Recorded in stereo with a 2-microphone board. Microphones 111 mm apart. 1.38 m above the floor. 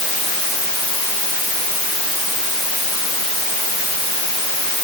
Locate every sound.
Only background noise.